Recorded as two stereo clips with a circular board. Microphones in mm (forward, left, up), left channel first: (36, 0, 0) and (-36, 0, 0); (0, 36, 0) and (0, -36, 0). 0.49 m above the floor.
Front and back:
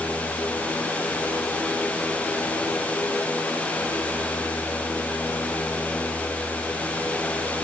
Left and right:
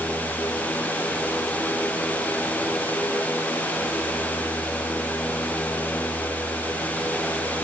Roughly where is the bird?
No bird in this recording.